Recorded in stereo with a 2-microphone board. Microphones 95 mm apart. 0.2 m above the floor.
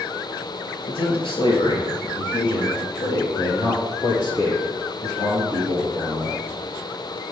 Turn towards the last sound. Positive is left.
turn(degrees=40)  # may be behind; listen again after turning